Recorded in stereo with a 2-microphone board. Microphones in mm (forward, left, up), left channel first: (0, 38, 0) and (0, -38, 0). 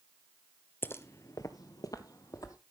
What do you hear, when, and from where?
0.8 s footsteps: 30° left (ahead or behind), 0.6 m; by 2.6 s 50° left (ahead or behind), 1.3 m